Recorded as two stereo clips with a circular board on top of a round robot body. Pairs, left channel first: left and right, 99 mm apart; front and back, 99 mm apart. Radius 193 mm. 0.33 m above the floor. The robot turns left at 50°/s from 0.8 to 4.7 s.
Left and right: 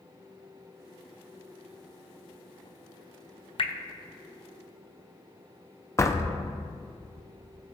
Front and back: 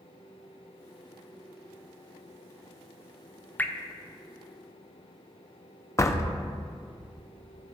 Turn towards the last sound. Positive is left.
turn(degrees=45)